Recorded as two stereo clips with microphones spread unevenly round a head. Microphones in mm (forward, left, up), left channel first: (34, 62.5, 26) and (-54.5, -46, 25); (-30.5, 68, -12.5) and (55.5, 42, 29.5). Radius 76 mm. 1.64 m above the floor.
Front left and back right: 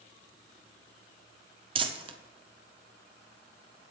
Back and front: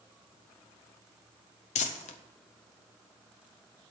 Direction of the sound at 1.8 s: 175° right.